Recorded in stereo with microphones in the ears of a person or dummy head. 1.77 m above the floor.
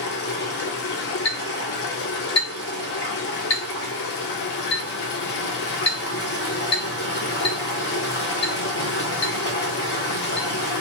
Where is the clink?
30° left (ahead or behind), 1.4 m.